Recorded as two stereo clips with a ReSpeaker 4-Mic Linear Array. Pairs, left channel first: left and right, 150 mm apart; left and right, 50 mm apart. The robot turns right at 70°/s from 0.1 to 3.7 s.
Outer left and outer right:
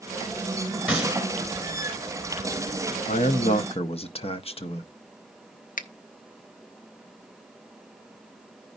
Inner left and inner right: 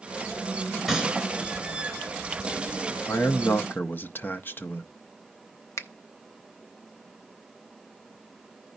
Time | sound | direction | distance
0.9 | a gunshot | 10° right (ahead or behind) | 2 m
3.1 | a man speaking | 80° left | 0.7 m
5.8 | a finger snap | 65° left (ahead or behind) | 0.6 m